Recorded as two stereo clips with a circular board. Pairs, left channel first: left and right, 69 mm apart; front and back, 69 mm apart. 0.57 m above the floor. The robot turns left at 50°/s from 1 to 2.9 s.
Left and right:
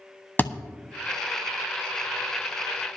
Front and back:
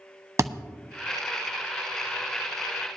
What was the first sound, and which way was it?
A thud, 145° left.